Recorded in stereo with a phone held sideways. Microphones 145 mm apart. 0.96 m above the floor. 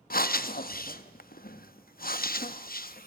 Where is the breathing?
80° left, 0.7 m.